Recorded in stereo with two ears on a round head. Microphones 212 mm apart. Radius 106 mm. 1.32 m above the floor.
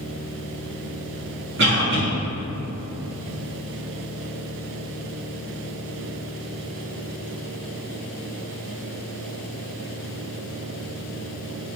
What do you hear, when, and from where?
1.6 s a cough: 50° right (ahead or behind), 1.4 m